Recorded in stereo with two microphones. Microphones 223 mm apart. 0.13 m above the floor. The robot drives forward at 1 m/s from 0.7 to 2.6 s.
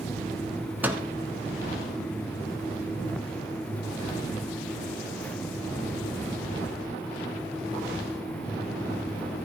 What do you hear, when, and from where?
0.8 s a microwave: 5° right (ahead or behind), 1.0 m; by 1.0 s 10° right (ahead or behind), 0.9 m